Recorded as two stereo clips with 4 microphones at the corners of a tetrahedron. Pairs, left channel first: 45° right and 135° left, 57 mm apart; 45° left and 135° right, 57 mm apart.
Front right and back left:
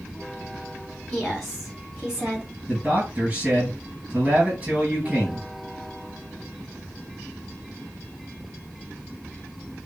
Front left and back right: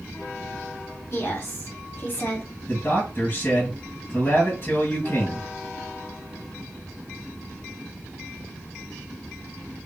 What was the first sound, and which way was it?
A woman speaking, 40° left.